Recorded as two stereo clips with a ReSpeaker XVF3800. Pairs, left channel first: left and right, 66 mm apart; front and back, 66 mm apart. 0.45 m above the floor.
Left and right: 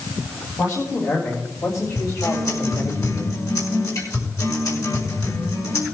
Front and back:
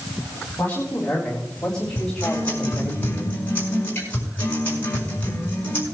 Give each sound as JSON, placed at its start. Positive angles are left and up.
{"t": 0.6, "sound": "a man speaking", "azimuth_deg": 65, "distance_m": 3.5}
{"t": 1.9, "sound": "a guitar", "azimuth_deg": 60, "distance_m": 5.0}